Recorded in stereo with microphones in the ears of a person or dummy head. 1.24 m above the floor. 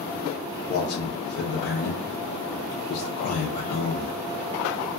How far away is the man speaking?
About 0.6 m.